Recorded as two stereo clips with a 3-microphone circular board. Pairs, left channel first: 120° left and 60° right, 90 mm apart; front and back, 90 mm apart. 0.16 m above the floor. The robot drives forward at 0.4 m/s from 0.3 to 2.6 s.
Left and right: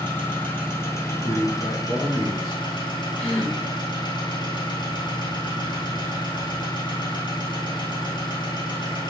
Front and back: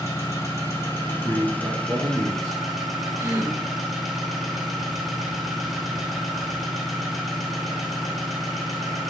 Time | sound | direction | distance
0.0 | an engine running | 50° left | 1.5 m
1.1 | a man speaking | 105° left | 1.2 m
3.2 | a gasp | 160° right | 2.5 m